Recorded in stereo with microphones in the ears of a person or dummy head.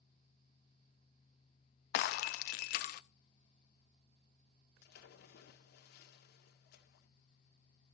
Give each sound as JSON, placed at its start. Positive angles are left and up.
{"t": 1.9, "sound": "breaking glass", "side_deg": 45, "distance_m": 0.5}
{"t": 4.8, "sound": "a splash", "side_deg": 60, "distance_m": 1.9}